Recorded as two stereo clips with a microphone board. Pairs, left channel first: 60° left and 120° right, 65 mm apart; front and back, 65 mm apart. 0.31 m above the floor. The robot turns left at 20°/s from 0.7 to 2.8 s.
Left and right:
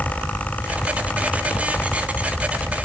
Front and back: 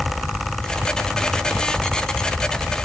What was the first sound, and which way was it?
Only background noise.